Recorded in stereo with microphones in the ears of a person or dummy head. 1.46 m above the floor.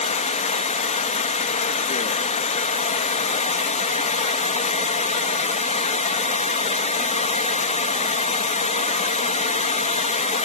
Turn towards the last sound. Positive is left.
turn(degrees=35)  # may be behind; listen again after turning